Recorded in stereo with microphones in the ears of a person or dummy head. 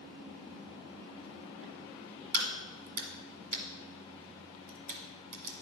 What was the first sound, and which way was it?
A crack, 50° right (ahead or behind).